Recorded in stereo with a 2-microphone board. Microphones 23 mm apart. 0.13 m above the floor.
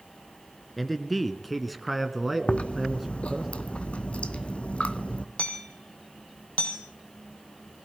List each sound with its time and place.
0.8 s a man speaking: 5° left (ahead or behind), 1.6 m; by 3.5 s 10° right (ahead or behind), 1.6 m
2.5 s chewing: 70° left (ahead or behind), 1.1 m
5.4 s hammering: 75° left (ahead or behind), 2.5 m